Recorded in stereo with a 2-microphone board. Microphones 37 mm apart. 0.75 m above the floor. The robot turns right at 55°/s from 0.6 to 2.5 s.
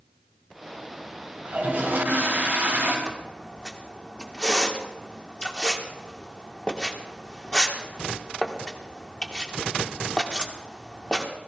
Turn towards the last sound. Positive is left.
turn(degrees=25)  # may be behind; listen again after turning